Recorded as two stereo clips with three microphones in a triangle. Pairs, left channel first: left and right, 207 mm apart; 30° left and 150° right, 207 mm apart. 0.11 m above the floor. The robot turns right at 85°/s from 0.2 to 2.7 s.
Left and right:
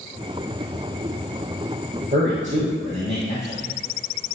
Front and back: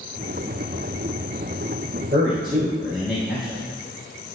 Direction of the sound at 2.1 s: 130° right.